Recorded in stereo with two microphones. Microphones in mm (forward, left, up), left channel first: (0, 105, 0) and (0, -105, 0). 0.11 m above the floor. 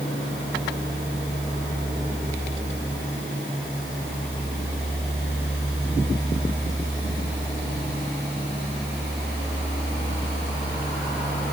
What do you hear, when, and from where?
Only background noise.